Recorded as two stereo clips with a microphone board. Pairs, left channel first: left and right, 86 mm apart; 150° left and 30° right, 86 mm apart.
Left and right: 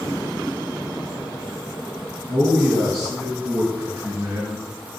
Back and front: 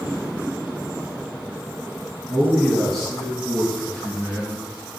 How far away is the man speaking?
About 2.0 m.